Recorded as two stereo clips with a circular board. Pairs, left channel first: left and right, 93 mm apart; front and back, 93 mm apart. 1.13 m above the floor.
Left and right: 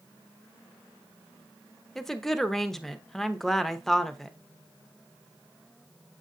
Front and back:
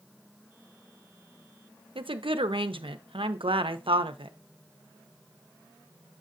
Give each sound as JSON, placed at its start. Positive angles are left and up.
{"t": 1.9, "sound": "a woman speaking", "azimuth_deg": 175, "distance_m": 0.7}